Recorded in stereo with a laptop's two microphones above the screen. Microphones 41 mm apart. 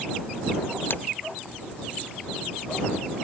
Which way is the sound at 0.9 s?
50° left (ahead or behind).